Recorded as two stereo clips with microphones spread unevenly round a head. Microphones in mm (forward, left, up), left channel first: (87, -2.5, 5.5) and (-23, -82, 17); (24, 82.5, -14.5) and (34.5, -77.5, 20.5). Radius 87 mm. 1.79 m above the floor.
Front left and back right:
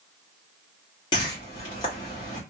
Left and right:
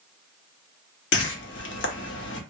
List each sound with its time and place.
1.1 s a whoosh: 100° left, 0.7 m